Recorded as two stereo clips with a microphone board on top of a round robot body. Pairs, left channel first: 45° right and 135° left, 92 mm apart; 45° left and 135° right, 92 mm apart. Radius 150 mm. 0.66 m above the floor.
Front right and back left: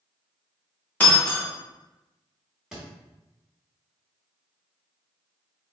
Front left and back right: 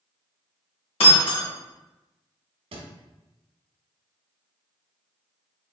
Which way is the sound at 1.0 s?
30° left.